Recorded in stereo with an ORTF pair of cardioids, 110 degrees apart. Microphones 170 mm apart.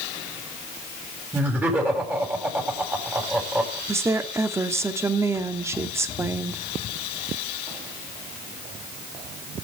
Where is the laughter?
10° right, 8 m.